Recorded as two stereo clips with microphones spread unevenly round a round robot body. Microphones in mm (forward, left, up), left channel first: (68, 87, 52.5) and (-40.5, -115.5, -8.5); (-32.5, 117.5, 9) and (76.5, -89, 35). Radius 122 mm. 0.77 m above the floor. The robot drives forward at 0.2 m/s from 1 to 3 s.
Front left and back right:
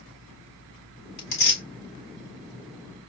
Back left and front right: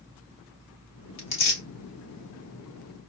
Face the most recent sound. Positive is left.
turn(degrees=120)